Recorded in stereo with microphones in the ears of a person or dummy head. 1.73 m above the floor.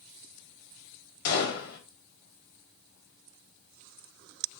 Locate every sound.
1.2 s a gunshot: 60° left (ahead or behind), 4 m